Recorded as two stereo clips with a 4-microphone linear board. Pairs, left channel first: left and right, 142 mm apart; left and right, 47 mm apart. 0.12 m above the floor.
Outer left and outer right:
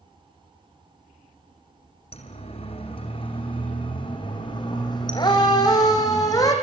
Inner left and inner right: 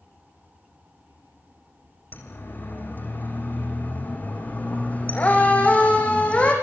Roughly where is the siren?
Left.